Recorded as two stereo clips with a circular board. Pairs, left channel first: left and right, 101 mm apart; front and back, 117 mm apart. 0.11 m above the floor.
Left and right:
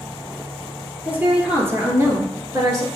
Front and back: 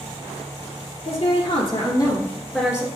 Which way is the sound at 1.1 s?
20° right.